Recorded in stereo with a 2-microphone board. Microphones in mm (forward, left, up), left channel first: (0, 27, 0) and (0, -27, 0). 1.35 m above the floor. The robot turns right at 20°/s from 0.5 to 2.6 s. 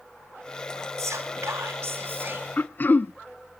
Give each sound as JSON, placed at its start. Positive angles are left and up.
{"t": 1.0, "sound": "whispering", "side_deg": -70, "distance_m": 3.5}
{"t": 2.6, "sound": "throat clearing", "side_deg": 35, "distance_m": 0.5}